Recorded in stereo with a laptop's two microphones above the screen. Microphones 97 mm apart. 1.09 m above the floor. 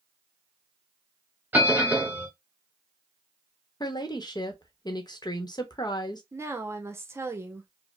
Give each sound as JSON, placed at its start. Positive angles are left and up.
{"t": 1.5, "sound": "a bell", "side_deg": -20, "distance_m": 1.2}
{"t": 3.8, "sound": "a woman speaking", "side_deg": 50, "distance_m": 1.0}
{"t": 6.3, "sound": "a woman speaking", "side_deg": -30, "distance_m": 0.8}